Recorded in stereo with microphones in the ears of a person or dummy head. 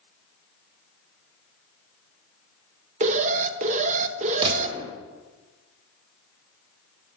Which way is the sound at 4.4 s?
25° right (ahead or behind).